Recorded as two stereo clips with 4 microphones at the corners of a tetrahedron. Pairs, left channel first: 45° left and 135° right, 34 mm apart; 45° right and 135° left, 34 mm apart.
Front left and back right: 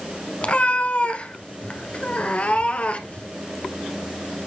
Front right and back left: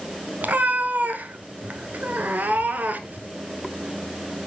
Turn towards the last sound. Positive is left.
turn(degrees=100)